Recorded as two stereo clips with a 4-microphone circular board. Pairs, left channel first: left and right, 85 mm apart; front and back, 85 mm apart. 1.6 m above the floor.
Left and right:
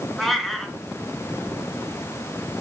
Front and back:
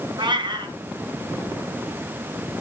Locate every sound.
0.2 s a cat meowing: straight behind, 3.5 m